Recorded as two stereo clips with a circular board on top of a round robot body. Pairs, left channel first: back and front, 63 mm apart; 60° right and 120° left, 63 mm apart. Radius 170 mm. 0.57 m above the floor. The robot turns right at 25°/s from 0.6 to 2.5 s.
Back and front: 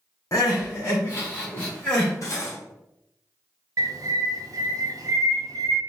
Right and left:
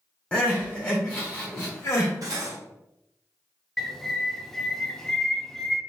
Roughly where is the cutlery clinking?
Behind left.